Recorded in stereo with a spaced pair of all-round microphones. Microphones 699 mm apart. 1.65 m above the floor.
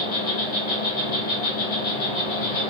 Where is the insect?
55° left (ahead or behind), 1.1 m.